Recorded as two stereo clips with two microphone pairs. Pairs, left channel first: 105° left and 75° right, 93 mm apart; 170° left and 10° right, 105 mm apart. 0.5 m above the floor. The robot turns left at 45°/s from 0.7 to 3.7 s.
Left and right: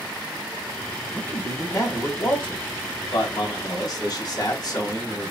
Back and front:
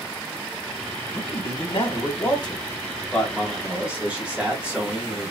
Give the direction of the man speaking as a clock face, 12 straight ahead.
6 o'clock.